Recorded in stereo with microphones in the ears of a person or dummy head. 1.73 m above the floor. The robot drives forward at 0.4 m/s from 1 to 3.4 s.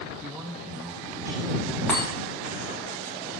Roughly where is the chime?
Centre.